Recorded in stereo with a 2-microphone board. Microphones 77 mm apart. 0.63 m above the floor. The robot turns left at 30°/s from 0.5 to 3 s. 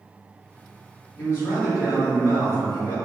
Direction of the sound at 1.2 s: 135° left.